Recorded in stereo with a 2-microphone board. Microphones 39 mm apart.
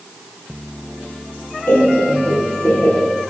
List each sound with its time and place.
1.7 s laughter: 90° left, 2.5 m; by 3.0 s 75° left (ahead or behind), 2.5 m